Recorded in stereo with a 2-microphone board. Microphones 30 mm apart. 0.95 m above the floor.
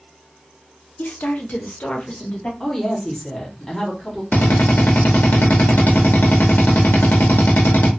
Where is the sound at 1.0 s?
65° left (ahead or behind), 0.6 m; by 2.5 s 40° left (ahead or behind), 1.0 m.